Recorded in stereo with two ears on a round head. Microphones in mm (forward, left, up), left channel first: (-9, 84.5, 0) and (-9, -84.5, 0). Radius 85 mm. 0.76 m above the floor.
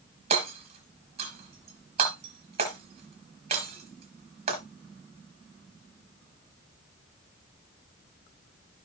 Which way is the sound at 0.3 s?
30° right (ahead or behind).